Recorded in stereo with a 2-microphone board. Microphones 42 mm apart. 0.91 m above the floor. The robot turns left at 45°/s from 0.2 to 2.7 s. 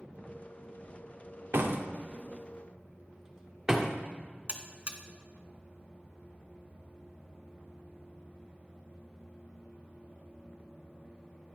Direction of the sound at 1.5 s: 65° right (ahead or behind).